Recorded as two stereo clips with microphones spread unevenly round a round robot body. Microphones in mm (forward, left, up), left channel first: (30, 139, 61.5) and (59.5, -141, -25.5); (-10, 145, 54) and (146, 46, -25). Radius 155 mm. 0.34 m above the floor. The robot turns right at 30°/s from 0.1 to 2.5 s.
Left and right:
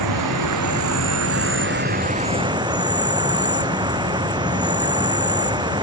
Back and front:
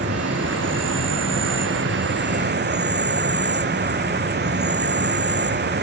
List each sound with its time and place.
0.0 s an insect: 80° right; by 5.8 s 10° right